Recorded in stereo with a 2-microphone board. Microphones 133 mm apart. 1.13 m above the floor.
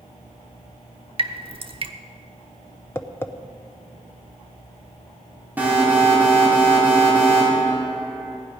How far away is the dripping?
About 0.9 m.